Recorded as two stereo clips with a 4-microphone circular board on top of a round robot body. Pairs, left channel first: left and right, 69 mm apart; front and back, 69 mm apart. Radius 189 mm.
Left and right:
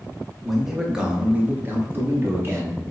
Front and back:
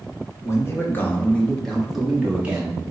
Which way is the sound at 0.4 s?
Straight ahead.